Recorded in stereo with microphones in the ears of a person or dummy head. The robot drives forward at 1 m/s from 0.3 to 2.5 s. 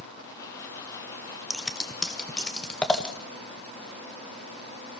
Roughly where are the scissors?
Centre.